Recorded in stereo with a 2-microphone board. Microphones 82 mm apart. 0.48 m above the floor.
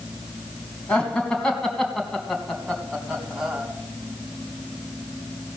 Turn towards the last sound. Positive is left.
turn(degrees=-10)  # may be behind; listen again after turning